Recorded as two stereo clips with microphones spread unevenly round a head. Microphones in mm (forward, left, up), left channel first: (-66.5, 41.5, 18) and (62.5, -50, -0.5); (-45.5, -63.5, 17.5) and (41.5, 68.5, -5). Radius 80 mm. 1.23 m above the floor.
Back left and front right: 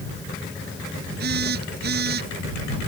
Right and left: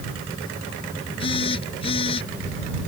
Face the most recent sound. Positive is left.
turn(degrees=-65)